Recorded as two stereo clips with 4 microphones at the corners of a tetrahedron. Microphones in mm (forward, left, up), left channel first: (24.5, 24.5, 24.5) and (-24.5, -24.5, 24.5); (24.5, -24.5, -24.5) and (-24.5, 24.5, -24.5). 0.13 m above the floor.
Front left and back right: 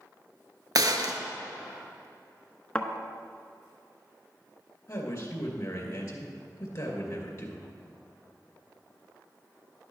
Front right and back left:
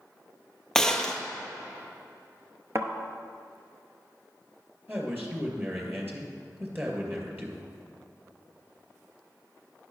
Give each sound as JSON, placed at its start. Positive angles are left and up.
{"t": 0.8, "sound": "a gunshot", "azimuth_deg": -125, "distance_m": 0.7}
{"t": 2.8, "sound": "a thud", "azimuth_deg": 115, "distance_m": 0.8}
{"t": 4.9, "sound": "a man speaking", "azimuth_deg": 85, "distance_m": 2.0}